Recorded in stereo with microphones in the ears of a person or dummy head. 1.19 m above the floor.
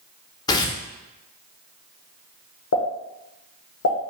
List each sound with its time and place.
0.5 s tearing paper: 20° left (ahead or behind), 0.7 m
2.7 s a pop: 75° left (ahead or behind), 0.9 m